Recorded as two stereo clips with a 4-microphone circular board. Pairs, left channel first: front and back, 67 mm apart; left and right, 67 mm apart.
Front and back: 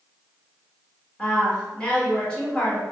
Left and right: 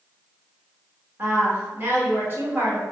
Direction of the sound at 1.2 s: 65° right.